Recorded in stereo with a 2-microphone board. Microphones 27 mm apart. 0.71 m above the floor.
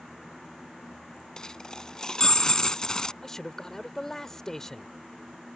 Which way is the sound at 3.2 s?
15° left (ahead or behind).